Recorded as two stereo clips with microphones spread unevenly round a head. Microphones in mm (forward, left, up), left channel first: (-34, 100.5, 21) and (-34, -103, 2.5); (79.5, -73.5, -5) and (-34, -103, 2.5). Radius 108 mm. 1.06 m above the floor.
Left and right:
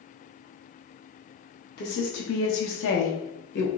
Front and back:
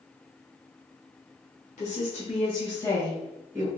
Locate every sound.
1.8 s a woman speaking: 45° left, 1.5 m; by 3.7 s 120° left, 1.1 m